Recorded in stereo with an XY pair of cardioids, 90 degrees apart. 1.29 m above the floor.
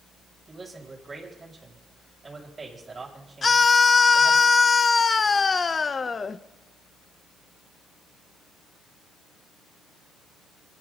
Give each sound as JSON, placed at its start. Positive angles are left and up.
{"t": 0.5, "sound": "a man speaking", "azimuth_deg": -30, "distance_m": 7.5}
{"t": 3.4, "sound": "a scream", "azimuth_deg": 35, "distance_m": 0.7}